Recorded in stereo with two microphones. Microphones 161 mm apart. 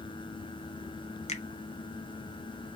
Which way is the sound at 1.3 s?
45° left (ahead or behind).